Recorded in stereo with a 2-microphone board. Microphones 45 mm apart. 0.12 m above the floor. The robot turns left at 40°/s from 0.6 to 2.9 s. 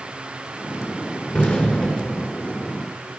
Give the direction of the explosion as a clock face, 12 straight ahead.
10 o'clock.